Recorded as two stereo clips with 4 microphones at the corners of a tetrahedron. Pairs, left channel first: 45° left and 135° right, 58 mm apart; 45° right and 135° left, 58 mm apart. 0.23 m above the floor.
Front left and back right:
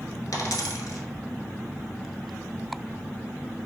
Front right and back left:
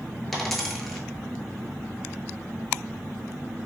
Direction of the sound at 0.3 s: 35° left.